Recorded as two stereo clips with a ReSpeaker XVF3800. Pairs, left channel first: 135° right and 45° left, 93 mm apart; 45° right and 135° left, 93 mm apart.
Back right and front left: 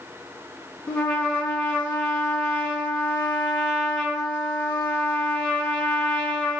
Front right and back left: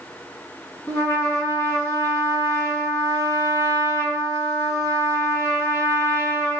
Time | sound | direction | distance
0.9 | a trumpet | 65° right | 1.7 m